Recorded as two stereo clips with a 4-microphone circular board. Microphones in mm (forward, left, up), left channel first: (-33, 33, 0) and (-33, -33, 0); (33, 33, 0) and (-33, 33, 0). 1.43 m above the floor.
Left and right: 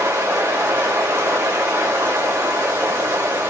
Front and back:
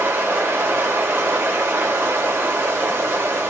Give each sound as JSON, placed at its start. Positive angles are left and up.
{"t": 0.0, "sound": "running water", "azimuth_deg": -135, "distance_m": 2.0}